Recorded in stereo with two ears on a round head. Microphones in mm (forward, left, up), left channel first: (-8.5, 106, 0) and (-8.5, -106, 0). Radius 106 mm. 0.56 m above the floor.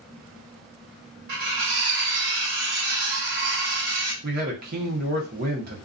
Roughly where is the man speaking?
Right.